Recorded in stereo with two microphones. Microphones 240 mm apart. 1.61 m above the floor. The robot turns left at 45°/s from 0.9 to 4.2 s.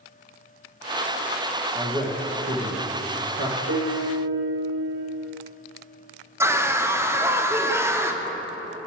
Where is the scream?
10° right (ahead or behind), 0.5 m.